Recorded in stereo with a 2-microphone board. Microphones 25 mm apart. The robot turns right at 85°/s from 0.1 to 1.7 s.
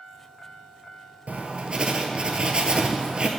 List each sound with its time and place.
1.3 s writing: 80° right, 0.6 m; by 3.3 s 45° right, 0.6 m